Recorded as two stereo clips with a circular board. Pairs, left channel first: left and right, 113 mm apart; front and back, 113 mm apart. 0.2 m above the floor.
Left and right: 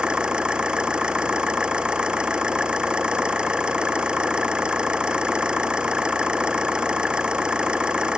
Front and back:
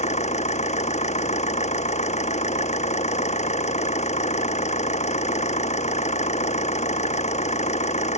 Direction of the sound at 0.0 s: 10° right.